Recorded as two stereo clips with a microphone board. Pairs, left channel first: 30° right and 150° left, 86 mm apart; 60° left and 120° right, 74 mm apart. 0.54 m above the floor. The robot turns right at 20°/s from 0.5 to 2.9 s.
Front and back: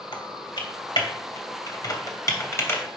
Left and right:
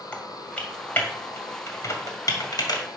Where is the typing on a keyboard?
15° right, 2 m; by 3.0 s 35° left, 2 m.